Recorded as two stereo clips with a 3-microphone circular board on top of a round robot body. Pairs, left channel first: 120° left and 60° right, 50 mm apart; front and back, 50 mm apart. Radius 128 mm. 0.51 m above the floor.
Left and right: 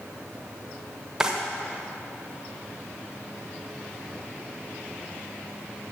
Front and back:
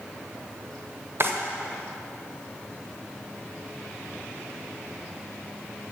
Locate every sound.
1.2 s a drawer: 140° right, 1.1 m